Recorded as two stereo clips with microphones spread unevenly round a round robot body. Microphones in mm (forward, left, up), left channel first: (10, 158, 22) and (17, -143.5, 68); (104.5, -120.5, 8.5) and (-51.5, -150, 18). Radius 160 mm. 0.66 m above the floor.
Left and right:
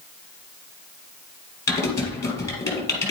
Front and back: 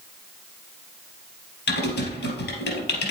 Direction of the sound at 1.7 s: 10° left.